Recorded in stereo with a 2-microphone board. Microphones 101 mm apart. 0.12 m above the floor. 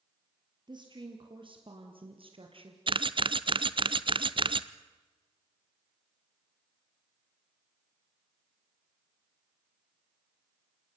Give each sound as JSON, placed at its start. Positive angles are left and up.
{"t": 0.7, "sound": "a woman speaking", "side_deg": -50, "distance_m": 3.0}
{"t": 2.9, "sound": "a camera shutter", "side_deg": -55, "distance_m": 0.6}